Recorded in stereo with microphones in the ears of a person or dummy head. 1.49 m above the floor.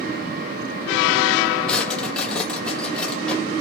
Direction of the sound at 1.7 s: 5° left (ahead or behind).